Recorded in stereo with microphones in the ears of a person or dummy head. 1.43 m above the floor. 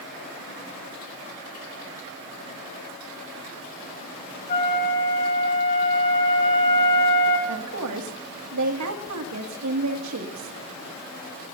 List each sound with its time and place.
4.5 s a flute: 40° left (ahead or behind), 3 m
7.5 s a woman speaking: 85° right, 2.5 m